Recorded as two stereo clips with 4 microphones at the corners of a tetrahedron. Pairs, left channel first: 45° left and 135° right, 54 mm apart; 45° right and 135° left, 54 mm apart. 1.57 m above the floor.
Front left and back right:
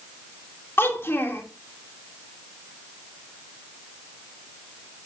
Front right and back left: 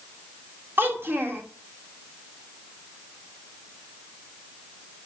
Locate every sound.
0.8 s a child speaking: 90° left, 2.5 m